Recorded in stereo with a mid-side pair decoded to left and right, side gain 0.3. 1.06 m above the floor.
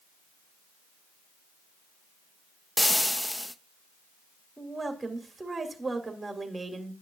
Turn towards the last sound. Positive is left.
turn(degrees=-30)